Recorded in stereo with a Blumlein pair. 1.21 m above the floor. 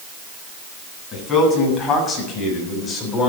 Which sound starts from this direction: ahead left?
A man speaking, at 1.1 s.